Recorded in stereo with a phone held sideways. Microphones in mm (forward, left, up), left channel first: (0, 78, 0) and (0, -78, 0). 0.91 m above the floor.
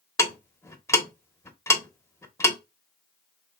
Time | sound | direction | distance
0.2 | ticking | 15° left (ahead or behind) | 0.8 m